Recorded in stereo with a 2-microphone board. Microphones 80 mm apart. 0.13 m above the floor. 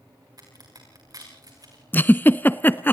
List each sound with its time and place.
0.4 s a crack: 55° right (ahead or behind), 7 m
1.9 s a giggle: 25° left (ahead or behind), 0.7 m